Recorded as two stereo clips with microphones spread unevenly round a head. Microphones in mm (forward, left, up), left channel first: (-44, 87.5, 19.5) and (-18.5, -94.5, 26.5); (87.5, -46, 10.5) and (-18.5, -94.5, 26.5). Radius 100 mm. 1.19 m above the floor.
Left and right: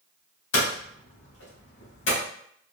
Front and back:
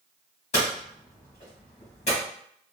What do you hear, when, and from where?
0.5 s hammering: 80° left, 1.4 m